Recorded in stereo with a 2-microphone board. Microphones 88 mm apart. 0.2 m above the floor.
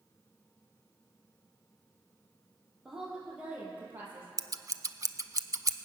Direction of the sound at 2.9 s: 5° right (ahead or behind).